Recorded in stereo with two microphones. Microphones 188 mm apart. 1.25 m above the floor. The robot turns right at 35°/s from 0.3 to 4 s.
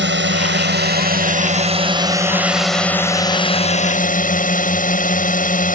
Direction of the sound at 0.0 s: 85° right.